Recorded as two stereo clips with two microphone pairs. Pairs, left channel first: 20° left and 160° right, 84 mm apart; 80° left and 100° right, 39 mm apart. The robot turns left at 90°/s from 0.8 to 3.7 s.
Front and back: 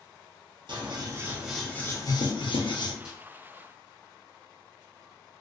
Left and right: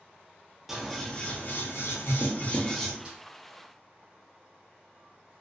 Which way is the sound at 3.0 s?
85° right.